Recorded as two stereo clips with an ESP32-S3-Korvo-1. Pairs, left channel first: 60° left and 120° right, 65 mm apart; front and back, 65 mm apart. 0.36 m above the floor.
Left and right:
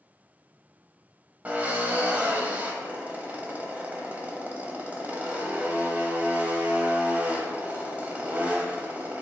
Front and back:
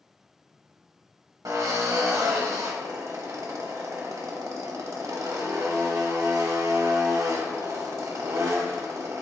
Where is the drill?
Straight behind, 0.8 m.